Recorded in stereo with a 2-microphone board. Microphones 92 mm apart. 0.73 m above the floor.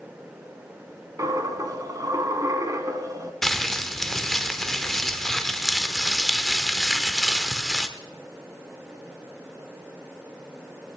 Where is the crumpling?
5° left (ahead or behind), 1.1 m.